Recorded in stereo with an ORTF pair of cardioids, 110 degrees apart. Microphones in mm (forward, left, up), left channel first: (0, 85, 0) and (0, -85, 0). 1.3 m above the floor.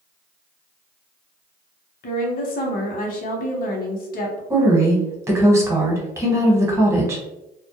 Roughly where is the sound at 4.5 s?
Ahead.